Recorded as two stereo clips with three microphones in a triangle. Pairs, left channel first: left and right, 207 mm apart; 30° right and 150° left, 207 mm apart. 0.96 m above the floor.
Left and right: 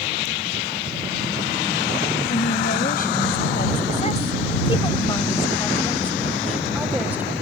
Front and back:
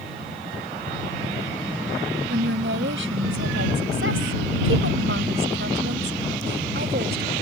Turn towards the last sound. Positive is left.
turn(degrees=-170)